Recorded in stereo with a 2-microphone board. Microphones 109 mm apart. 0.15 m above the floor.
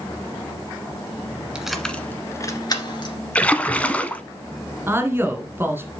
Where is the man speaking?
20° right (ahead or behind), 1.6 m.